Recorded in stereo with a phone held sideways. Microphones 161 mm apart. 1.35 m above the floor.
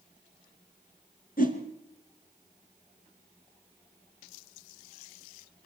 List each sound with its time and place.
1.4 s a whoosh: 60° left (ahead or behind), 3 m